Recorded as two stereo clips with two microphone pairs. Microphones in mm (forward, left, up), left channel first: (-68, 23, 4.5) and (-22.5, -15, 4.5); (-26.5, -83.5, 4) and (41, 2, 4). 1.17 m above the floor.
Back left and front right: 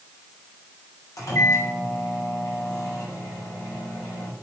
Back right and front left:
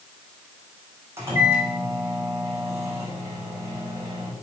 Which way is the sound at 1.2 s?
115° left.